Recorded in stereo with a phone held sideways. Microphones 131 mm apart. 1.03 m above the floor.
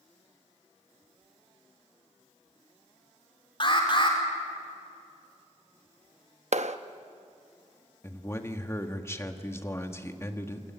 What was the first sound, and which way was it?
An alarm, 40° left (ahead or behind).